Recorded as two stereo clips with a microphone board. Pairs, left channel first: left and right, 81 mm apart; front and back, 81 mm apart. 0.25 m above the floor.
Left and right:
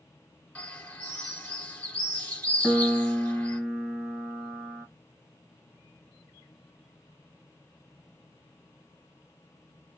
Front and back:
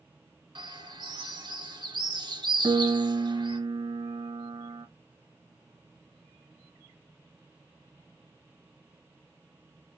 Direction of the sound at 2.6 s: 175° right.